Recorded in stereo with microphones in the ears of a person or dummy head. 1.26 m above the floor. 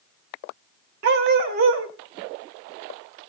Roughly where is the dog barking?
Right.